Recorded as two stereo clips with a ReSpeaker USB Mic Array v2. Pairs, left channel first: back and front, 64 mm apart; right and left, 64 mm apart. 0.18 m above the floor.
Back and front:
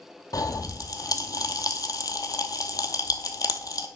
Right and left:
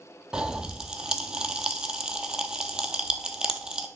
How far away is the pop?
About 0.9 m.